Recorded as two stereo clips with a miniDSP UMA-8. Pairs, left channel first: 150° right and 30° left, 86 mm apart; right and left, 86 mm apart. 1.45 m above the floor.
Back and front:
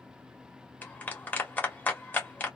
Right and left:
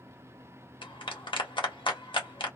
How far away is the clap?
About 1.3 m.